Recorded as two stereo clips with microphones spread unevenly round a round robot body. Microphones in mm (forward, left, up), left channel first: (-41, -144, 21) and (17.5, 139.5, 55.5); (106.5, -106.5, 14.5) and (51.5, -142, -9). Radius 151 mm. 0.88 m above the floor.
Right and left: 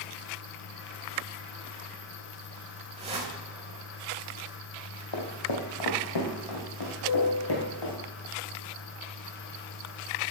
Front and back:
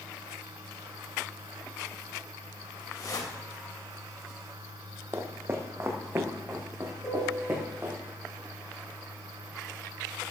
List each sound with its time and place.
3.0 s a whoosh: 10° left, 3.5 m
5.1 s footsteps: 90° right, 2.5 m
7.0 s a piano: 25° right, 5 m